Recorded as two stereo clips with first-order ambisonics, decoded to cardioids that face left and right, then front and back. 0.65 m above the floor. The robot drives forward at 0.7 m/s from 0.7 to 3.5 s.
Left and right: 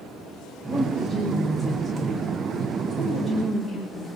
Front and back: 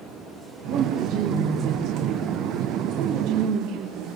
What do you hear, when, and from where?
0.7 s a woman speaking: 155° right, 2.5 m; by 4.1 s 165° right, 4 m